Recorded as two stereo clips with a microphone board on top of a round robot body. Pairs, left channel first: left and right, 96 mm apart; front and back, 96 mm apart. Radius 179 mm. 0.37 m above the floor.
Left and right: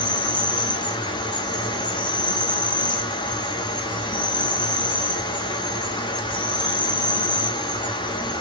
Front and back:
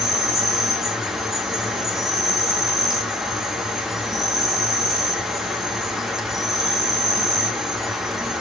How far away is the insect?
About 1.4 m.